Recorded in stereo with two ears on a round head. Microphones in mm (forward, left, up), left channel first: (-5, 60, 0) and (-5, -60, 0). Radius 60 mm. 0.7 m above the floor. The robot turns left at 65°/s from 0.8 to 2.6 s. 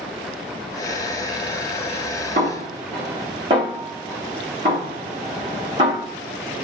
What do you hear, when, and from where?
2.4 s a snare drum: 55° right (ahead or behind), 1.3 m; by 6.1 s 40° right (ahead or behind), 1.3 m